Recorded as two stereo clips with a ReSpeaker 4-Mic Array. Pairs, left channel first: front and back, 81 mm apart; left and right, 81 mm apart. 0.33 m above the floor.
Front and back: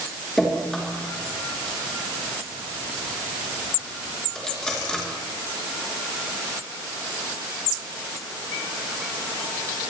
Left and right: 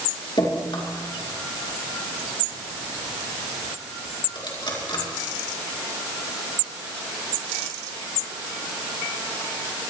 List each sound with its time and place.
0.4 s dripping: 80° left, 4.5 m